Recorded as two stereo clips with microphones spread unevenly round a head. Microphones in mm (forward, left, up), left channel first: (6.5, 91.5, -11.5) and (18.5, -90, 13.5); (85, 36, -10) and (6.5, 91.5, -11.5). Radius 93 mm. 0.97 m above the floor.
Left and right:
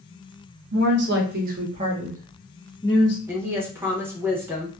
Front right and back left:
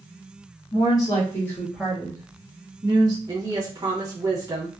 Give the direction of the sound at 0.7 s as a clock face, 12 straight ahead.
3 o'clock.